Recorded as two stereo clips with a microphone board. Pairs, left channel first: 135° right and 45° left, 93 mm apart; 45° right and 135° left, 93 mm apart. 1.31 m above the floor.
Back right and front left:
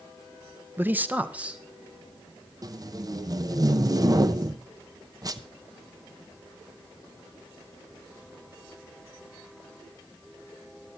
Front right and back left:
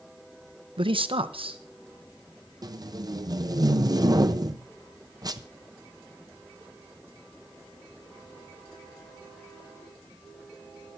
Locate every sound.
0.8 s a man speaking: 115° left, 0.7 m; by 2.5 s 125° left, 2 m
2.6 s tape being pulled: 90° left, 0.7 m